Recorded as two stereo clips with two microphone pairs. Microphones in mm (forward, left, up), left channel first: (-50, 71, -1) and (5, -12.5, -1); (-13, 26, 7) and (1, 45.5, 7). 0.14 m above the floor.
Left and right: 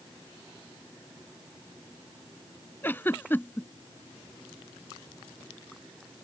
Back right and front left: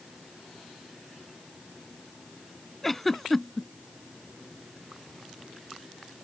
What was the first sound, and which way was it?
A giggle, 160° left.